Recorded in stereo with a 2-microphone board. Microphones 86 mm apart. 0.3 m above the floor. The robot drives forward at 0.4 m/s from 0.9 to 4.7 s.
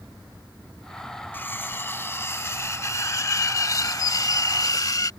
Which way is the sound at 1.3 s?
25° left (ahead or behind).